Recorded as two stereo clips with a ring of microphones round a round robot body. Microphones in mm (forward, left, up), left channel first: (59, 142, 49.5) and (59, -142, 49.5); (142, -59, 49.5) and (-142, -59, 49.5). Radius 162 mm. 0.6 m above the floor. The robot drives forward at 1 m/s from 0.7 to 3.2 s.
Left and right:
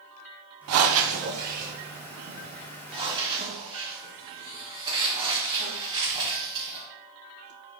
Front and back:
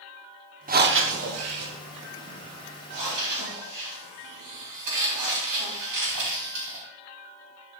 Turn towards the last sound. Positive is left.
turn(degrees=-165)